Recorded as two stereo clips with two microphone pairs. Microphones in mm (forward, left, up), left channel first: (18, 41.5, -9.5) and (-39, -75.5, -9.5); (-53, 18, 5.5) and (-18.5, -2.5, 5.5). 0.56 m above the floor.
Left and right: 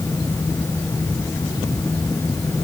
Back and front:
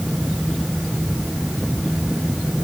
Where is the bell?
No bell in this recording.